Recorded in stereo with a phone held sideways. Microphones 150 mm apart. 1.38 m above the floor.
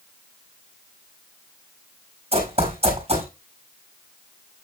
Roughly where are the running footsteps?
Right.